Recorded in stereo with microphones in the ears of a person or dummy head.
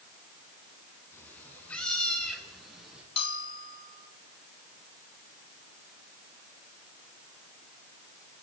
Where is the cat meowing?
10° left (ahead or behind), 8 m; by 3.0 s 5° right (ahead or behind), 9.5 m.